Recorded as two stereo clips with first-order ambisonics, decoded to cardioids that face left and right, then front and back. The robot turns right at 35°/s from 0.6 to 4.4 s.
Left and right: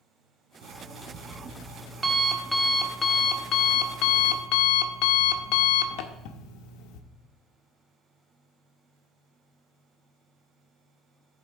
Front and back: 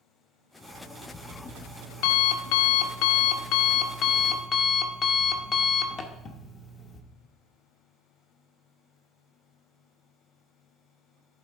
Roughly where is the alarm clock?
Right.